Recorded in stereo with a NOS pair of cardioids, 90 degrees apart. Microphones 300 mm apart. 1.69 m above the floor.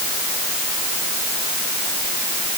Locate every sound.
Only background noise.